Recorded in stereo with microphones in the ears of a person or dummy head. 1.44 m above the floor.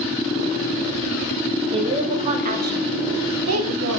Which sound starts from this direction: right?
A woman speaking, at 1.7 s.